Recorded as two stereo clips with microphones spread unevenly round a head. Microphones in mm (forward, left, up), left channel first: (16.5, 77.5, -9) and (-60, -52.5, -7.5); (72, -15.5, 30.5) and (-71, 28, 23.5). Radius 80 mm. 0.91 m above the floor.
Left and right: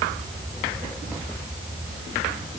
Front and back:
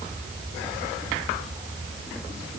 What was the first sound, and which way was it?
Only background noise.